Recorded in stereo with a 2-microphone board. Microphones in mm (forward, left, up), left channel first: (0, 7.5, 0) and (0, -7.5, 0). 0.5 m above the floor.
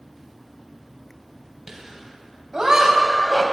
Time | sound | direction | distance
1.7 | laughter | 35° right (ahead or behind) | 3 m